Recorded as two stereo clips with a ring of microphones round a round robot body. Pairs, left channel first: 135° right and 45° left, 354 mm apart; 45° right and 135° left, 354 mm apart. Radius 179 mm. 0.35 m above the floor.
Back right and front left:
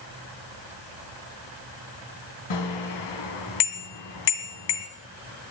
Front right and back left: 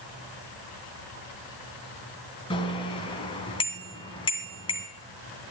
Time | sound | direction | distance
2.5 | a bicycle bell | 120° right | 2 m